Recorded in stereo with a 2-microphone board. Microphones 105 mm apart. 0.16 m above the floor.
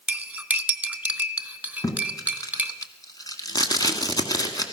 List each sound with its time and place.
0.1 s cutlery clinking: 15° right (ahead or behind), 0.7 m
1.8 s tape being pulled: 35° left (ahead or behind), 1.5 m